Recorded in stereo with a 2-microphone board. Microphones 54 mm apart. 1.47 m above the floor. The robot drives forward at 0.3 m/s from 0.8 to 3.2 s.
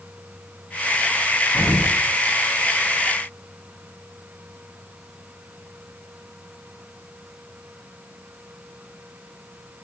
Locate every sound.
1.5 s an explosion: 75° left (ahead or behind), 1.6 m